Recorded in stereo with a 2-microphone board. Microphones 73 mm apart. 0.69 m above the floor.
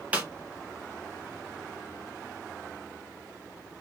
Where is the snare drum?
20° right (ahead or behind), 0.8 m.